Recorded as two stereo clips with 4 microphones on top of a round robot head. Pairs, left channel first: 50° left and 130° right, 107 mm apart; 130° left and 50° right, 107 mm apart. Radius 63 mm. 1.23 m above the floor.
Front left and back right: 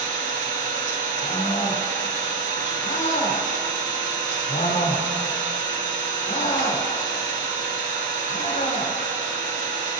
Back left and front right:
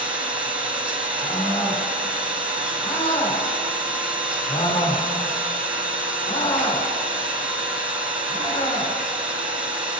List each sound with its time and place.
0.0 s an engine running: 130° right, 2.0 m
1.2 s a scream: 90° left, 3.5 m